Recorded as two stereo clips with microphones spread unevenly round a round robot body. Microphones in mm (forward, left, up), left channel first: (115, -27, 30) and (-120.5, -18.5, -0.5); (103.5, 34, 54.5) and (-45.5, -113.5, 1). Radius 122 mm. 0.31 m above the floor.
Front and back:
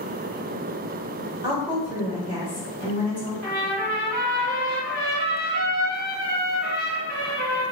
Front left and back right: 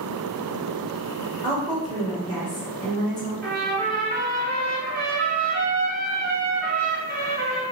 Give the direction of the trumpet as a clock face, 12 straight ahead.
5 o'clock.